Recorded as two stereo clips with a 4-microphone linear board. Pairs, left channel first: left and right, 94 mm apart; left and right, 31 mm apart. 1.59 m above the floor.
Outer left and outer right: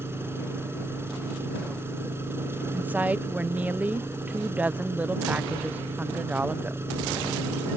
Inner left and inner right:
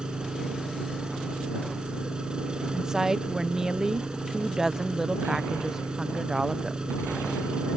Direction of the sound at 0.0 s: 25° right (ahead or behind).